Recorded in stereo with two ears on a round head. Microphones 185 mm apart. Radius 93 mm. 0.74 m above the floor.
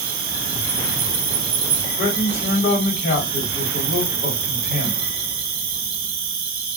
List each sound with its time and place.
0.0 s an insect: 45° right (ahead or behind), 0.9 m
2.0 s a man speaking: 40° left (ahead or behind), 1.6 m